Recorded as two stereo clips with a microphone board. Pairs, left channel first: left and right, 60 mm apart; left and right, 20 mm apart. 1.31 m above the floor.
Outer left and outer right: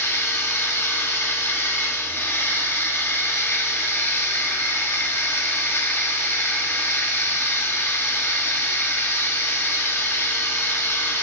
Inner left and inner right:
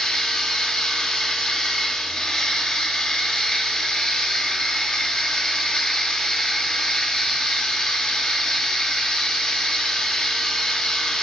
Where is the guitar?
No guitar in this recording.